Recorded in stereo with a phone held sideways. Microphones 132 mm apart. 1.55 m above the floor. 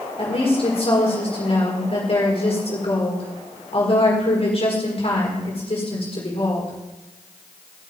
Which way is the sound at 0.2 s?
50° left (ahead or behind).